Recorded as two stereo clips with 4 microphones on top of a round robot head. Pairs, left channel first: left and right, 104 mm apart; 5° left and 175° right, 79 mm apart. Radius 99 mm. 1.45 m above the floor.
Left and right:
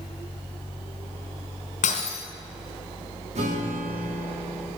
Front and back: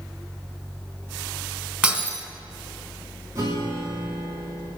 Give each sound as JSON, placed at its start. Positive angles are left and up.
{"t": 1.8, "sound": "breaking glass", "azimuth_deg": 110, "distance_m": 3.0}
{"t": 3.4, "sound": "a guitar", "azimuth_deg": -115, "distance_m": 3.0}